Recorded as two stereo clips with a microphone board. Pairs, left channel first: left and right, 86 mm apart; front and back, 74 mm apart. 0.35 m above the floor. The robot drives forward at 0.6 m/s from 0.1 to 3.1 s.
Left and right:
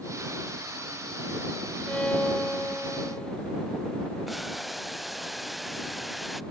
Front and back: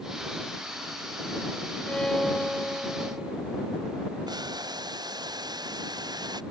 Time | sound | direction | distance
1.9 | a violin | 40° left | ?
4.3 | boiling | straight behind | ?